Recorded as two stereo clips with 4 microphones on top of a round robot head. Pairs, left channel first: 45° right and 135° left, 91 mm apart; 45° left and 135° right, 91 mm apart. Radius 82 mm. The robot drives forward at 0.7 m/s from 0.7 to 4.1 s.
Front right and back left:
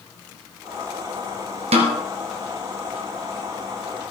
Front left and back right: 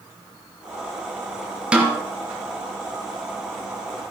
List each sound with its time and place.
1.7 s a snare drum: 145° left, 3 m